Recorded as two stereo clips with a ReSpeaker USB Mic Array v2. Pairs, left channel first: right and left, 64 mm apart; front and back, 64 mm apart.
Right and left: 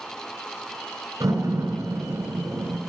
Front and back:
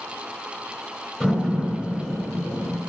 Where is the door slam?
75° left, 3 m.